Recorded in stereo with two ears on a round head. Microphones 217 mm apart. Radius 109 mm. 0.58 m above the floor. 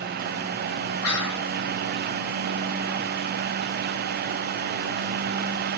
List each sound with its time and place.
1.0 s whispering: 70° left (ahead or behind), 3.5 m